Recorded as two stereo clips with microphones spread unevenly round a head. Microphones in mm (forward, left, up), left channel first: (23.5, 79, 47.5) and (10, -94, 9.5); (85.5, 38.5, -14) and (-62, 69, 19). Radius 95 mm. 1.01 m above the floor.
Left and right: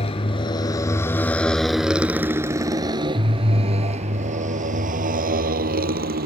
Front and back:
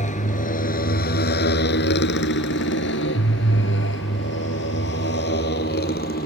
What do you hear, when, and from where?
0.0 s a motorcycle: 30° left; by 6.3 s 60° right